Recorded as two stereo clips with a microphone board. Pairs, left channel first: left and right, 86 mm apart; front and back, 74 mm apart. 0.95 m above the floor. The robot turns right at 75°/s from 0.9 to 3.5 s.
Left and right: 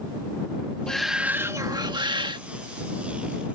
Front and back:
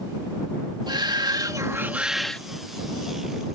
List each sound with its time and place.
0.9 s a shout: 170° left; by 2.4 s 75° right